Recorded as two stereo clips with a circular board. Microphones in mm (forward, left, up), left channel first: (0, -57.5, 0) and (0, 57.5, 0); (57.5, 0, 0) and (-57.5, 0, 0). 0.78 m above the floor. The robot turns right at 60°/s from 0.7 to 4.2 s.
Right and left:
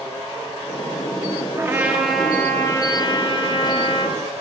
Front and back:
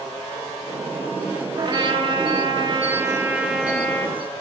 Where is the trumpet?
145° left, 0.6 m; by 4.2 s 55° right, 0.6 m.